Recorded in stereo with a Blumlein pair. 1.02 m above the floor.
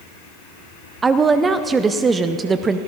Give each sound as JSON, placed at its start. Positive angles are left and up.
{"t": 1.0, "sound": "a woman speaking", "azimuth_deg": -15, "distance_m": 0.5}